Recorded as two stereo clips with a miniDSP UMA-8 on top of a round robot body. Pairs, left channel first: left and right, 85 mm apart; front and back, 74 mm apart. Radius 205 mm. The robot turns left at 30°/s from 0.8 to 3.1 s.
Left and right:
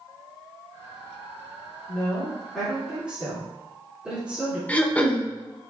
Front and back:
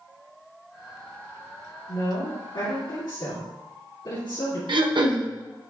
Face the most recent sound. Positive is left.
turn(degrees=165)